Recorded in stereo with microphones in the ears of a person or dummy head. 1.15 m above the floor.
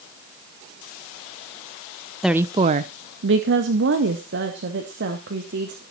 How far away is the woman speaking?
About 0.7 m.